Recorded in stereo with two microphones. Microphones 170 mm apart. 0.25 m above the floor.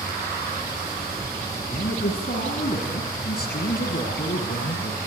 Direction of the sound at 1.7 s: 65° left (ahead or behind).